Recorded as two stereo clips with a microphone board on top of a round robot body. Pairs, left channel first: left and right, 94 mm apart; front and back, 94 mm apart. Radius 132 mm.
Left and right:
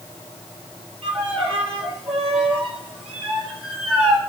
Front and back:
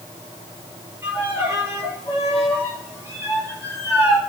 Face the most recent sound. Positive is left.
turn(degrees=-120)